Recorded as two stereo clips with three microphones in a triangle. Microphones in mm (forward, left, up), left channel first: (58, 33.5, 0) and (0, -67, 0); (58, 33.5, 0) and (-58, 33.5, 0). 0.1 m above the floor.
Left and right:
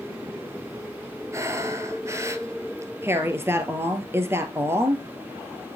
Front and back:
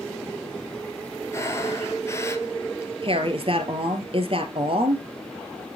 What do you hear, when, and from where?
1.3 s breathing: 60° right, 1.0 m
3.0 s a woman speaking: 175° left, 1.7 m